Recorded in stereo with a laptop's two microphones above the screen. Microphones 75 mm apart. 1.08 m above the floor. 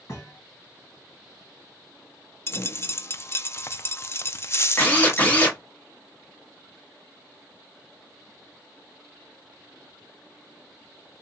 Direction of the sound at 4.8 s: 25° left (ahead or behind).